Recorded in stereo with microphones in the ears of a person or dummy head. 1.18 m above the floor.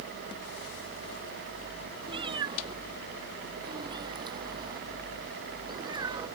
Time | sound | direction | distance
2.1 | a cat meowing | 25° right (ahead or behind) | ?